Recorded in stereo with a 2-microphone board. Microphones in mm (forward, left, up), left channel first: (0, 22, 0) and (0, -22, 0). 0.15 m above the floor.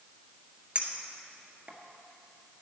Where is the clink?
30° right (ahead or behind), 1.5 m.